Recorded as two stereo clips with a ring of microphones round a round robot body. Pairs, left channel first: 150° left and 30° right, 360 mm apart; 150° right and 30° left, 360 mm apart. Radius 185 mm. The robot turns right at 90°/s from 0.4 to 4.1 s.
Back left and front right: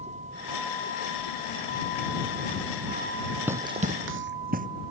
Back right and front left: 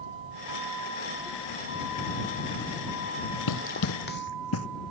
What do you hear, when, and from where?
0.0 s a vehicle: 45° left; by 4.9 s 5° right
3.5 s running footsteps: 115° right; by 4.7 s 100° right